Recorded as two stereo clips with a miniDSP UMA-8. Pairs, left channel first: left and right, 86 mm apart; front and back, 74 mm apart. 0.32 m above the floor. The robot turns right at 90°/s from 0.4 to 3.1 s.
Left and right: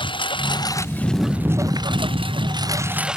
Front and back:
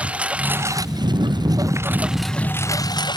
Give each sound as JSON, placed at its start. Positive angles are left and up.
{"t": 0.0, "sound": "a lawn mower", "azimuth_deg": 110}